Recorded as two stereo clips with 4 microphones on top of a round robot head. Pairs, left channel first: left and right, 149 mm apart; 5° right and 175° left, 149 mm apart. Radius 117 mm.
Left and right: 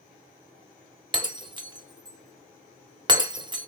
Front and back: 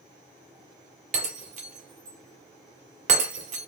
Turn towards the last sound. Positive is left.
turn(degrees=-150)